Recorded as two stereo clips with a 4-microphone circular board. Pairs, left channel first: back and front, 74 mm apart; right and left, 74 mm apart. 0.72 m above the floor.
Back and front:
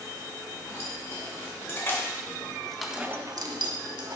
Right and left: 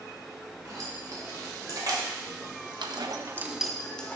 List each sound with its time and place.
0.7 s keys jangling: 130° left, 3.5 m; by 4.2 s 20° right, 1.4 m